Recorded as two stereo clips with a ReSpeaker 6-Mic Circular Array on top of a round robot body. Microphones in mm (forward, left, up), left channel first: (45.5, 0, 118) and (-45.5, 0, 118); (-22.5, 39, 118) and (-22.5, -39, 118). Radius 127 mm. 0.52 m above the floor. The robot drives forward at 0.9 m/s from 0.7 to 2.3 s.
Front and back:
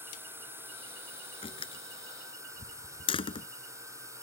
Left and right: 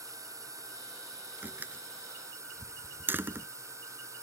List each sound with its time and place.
0.0 s a drone: 120° right; by 4.2 s 130° right
1.4 s a door slam: 20° right; by 3.5 s 25° right